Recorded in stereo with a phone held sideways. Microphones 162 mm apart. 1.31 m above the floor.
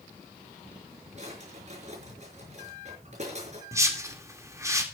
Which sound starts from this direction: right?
A drawer, at 1.2 s.